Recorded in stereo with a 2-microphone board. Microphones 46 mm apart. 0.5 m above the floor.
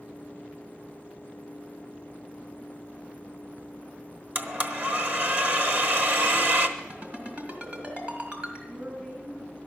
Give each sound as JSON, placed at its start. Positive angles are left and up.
{"t": 4.3, "sound": "a blender", "side_deg": -40, "distance_m": 1.2}
{"t": 6.8, "sound": "a ringtone", "side_deg": -40, "distance_m": 3.0}
{"t": 8.7, "sound": "a woman speaking", "side_deg": -70, "distance_m": 7.0}